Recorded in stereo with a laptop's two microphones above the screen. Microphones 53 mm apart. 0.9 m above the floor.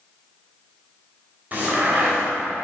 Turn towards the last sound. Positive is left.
turn(degrees=-30)  # may be behind; listen again after turning